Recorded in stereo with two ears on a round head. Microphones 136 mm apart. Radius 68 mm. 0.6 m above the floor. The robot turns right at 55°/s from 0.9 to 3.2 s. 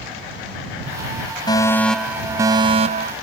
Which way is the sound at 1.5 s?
150° left.